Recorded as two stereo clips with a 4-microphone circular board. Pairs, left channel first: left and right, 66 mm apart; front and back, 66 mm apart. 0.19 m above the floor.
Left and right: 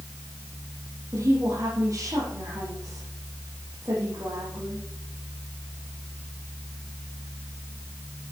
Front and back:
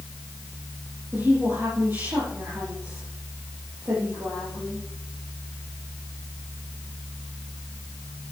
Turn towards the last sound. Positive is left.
turn(degrees=-130)